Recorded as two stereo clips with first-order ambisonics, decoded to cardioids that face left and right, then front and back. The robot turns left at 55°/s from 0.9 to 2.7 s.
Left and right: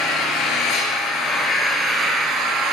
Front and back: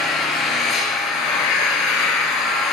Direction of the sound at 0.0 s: 50° left.